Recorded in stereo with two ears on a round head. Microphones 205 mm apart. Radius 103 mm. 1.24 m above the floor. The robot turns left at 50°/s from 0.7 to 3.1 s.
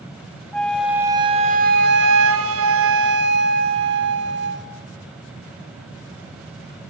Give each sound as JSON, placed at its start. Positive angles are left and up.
{"t": 0.5, "sound": "a flute", "azimuth_deg": 5, "distance_m": 1.3}